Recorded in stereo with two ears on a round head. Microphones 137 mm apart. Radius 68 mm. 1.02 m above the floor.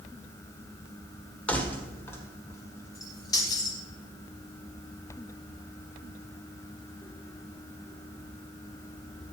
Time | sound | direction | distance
1.5 | keys jangling | 10° left (ahead or behind) | 2.0 m